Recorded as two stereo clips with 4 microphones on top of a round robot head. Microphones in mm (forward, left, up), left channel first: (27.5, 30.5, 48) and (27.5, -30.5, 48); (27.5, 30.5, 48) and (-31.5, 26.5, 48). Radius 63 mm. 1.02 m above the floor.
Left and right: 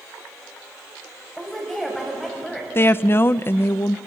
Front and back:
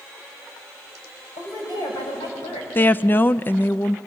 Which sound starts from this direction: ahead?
A woman speaking, at 1.4 s.